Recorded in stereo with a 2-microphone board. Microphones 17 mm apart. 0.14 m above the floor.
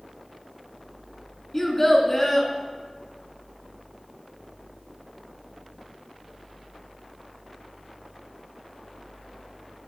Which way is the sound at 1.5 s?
20° left (ahead or behind).